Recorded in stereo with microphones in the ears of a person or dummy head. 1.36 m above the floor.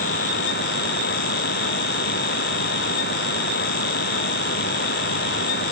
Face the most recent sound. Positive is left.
No sound to turn to.